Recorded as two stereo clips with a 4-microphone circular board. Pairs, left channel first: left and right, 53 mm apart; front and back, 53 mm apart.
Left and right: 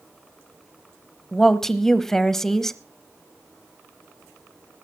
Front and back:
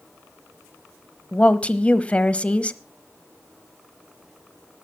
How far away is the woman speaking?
About 1.0 m.